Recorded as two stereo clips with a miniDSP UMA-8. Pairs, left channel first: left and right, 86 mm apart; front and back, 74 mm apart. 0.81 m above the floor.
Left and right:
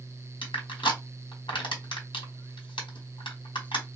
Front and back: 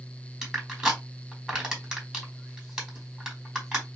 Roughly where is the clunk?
No clunk in this recording.